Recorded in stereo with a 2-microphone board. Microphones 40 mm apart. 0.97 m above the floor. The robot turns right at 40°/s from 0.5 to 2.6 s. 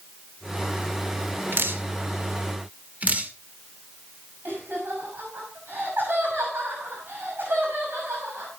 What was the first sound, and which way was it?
Dripping, 85° right.